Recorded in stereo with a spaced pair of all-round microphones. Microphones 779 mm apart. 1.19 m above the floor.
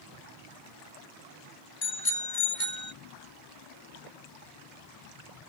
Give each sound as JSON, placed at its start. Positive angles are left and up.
{"t": 1.8, "sound": "a bicycle bell", "side_deg": 80}